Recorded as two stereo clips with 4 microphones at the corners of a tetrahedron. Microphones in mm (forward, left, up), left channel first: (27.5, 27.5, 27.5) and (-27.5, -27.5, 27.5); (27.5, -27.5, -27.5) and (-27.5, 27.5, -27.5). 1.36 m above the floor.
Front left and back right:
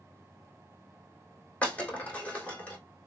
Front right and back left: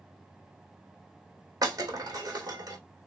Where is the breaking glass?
115° left, 2.5 m.